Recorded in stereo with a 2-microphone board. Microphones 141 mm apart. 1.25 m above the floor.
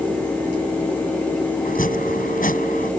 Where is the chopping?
80° left.